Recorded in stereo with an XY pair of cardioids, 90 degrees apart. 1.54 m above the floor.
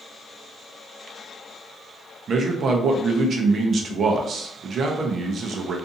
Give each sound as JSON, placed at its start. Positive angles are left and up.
{"t": 2.3, "sound": "a man speaking", "azimuth_deg": -60, "distance_m": 0.7}